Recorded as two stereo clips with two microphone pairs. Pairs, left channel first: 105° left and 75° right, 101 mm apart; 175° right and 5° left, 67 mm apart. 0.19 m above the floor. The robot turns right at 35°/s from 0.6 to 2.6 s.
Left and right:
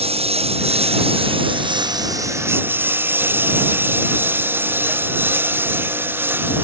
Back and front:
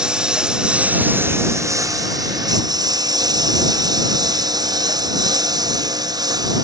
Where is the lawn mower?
75° right; by 6.7 s 5° right.